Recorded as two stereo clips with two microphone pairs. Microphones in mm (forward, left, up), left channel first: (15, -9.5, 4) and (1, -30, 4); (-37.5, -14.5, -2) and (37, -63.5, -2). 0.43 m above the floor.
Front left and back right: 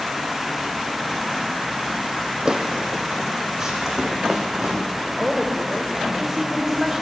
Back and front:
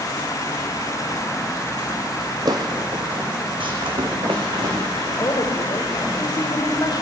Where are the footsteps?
70° right, 1.3 m; by 5.0 s 45° right, 2.5 m.